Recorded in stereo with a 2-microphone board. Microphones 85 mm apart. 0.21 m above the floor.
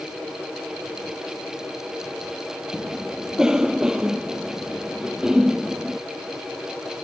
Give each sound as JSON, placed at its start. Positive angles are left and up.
{"t": 2.7, "sound": "a cough", "side_deg": -10}